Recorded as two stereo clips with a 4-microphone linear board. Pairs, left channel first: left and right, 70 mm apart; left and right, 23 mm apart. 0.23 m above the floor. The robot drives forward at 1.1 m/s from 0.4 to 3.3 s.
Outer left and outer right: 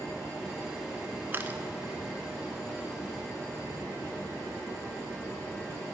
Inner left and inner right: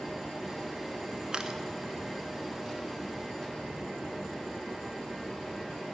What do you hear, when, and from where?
1.3 s a camera shutter: 30° right (ahead or behind), 0.9 m; by 1.6 s 25° right (ahead or behind), 1.2 m